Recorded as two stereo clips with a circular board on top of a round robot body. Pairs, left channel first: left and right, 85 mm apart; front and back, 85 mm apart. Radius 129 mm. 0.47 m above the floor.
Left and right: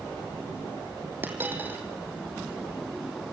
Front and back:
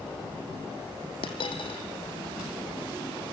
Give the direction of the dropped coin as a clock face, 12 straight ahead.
1 o'clock.